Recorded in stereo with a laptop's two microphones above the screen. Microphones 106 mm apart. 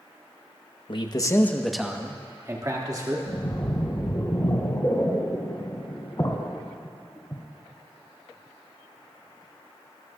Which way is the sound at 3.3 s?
35° left (ahead or behind).